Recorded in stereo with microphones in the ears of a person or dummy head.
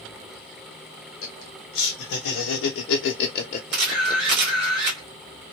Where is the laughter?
50° left (ahead or behind), 1.2 m; by 4.4 s 10° left (ahead or behind), 0.8 m.